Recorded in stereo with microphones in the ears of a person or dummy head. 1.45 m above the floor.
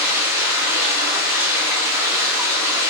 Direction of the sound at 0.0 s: 15° right (ahead or behind).